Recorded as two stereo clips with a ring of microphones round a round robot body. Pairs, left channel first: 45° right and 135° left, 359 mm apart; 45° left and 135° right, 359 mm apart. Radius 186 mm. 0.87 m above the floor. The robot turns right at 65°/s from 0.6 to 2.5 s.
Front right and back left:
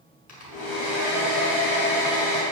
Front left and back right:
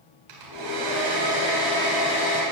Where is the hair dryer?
115° right, 3.5 m; by 2.4 s 5° left, 3.5 m.